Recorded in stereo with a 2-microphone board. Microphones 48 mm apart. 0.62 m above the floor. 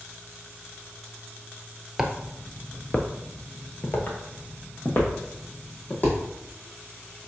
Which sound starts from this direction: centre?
Footsteps, at 2.0 s.